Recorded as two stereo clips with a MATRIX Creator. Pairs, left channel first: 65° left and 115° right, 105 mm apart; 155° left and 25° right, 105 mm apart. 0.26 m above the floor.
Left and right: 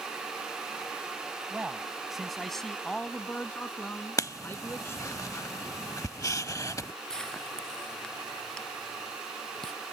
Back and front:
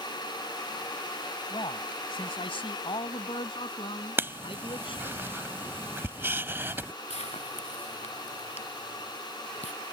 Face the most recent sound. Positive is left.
turn(degrees=150)